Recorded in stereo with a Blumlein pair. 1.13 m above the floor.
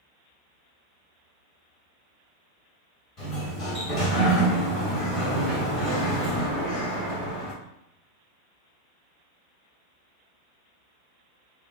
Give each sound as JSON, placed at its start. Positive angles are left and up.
{"t": 3.2, "sound": "a sliding door", "azimuth_deg": 25, "distance_m": 1.7}